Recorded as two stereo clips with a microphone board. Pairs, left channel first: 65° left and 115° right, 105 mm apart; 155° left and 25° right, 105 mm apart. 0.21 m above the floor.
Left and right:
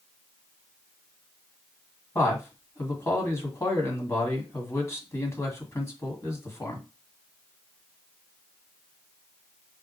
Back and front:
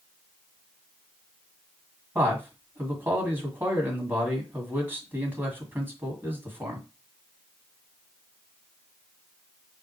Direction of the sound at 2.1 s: 30° left.